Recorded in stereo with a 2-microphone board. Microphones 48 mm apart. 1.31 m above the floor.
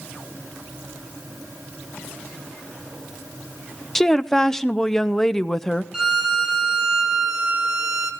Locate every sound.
4.0 s a woman speaking: 10° left (ahead or behind), 0.6 m
5.9 s a violin: 15° right (ahead or behind), 1.8 m